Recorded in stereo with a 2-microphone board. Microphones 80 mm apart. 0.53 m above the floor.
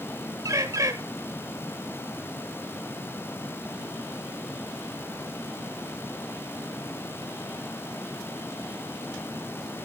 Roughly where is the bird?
Right.